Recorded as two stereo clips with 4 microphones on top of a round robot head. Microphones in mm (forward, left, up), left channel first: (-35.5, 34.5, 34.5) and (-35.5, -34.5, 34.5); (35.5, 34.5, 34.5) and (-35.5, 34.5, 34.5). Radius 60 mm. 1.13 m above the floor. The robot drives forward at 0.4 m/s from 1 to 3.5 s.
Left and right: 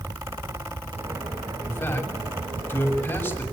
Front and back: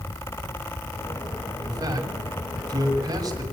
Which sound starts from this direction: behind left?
A man speaking, at 1.6 s.